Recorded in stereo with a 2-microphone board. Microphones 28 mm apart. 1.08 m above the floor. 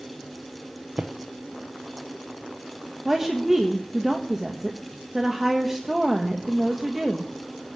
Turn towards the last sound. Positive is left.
turn(degrees=-15)  # may be behind; listen again after turning